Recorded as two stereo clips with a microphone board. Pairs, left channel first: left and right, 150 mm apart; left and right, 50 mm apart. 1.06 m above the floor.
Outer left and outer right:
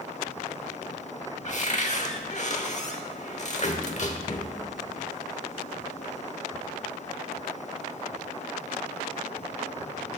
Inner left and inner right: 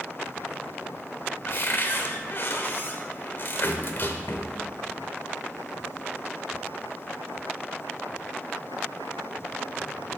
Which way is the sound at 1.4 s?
50° left (ahead or behind).